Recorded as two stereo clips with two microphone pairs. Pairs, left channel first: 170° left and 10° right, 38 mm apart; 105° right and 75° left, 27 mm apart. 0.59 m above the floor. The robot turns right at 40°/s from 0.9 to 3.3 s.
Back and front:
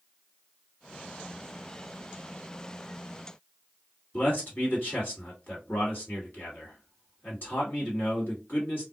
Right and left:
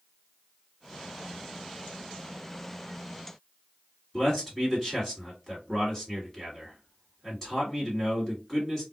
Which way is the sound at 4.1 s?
175° left.